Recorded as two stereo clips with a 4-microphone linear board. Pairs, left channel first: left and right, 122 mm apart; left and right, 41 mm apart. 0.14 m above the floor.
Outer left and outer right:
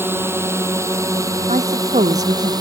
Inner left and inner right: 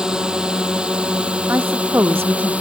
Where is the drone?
20° right (ahead or behind); by 2.6 s 35° right (ahead or behind).